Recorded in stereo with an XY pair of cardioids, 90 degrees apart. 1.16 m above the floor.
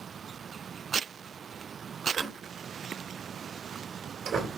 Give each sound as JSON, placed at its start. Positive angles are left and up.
{"t": 2.1, "sound": "a door slam", "azimuth_deg": -60, "distance_m": 3.5}